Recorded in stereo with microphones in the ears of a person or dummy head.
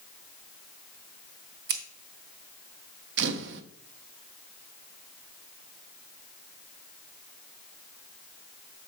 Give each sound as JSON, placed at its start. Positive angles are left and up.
{"t": 1.7, "sound": "scissors", "side_deg": -60, "distance_m": 1.5}
{"t": 3.2, "sound": "a camera shutter", "side_deg": -65, "distance_m": 0.8}